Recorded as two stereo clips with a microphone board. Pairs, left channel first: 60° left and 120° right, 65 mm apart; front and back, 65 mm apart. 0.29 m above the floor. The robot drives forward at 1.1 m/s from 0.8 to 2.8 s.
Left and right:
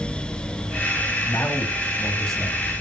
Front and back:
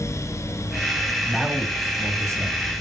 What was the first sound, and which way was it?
A man speaking, 80° left.